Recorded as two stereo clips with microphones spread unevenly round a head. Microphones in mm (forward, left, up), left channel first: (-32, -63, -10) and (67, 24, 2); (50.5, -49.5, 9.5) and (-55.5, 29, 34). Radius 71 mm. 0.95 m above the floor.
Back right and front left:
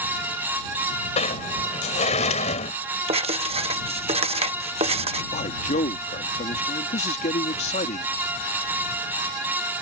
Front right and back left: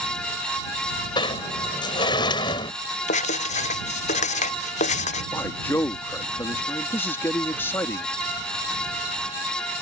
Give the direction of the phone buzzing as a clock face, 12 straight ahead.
No phone buzzing in this recording.